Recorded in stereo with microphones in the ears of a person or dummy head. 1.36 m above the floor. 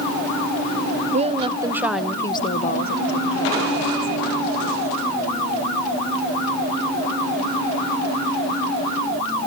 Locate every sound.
1.1 s a woman speaking: 35° right (ahead or behind), 0.9 m; by 5.0 s 75° left (ahead or behind), 1.9 m